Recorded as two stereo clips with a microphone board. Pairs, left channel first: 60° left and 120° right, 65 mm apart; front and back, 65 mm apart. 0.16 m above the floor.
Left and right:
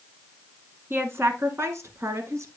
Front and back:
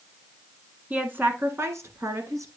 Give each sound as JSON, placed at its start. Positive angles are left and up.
{"t": 0.9, "sound": "a woman speaking", "azimuth_deg": -130, "distance_m": 1.3}